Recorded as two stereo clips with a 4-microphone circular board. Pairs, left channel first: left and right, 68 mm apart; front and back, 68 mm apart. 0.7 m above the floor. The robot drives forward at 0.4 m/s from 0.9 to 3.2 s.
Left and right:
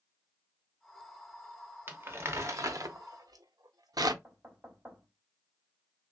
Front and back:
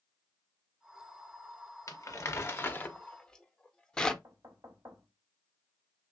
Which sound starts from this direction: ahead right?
Crumpling, at 1.9 s.